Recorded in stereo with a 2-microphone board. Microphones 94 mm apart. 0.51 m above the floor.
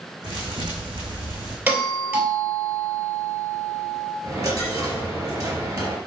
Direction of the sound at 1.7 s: 20° right (ahead or behind).